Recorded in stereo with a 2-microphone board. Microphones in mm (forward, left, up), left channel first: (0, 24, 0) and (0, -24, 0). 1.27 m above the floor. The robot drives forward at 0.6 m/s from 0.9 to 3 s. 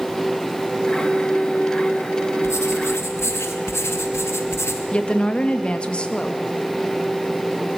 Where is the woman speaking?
20° left (ahead or behind), 2 m.